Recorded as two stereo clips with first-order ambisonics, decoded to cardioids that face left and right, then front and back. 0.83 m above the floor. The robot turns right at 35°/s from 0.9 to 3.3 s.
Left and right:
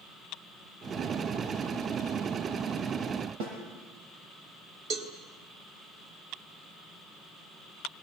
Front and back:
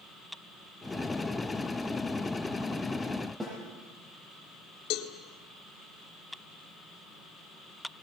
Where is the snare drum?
100° right, 8 m.